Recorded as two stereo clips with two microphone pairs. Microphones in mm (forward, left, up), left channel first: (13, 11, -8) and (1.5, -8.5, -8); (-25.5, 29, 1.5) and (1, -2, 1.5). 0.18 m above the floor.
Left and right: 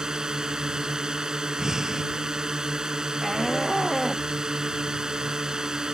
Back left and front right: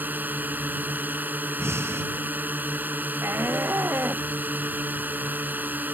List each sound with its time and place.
0.0 s a drone: 70° right
1.6 s breathing: 55° right
3.2 s a shout: 35° right